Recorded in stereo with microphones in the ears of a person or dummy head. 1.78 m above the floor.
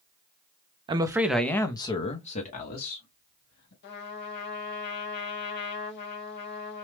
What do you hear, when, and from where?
0.9 s a man speaking: 30° right (ahead or behind), 0.5 m; by 3.7 s 50° left (ahead or behind), 1.5 m
3.8 s a trumpet: 50° left (ahead or behind), 0.8 m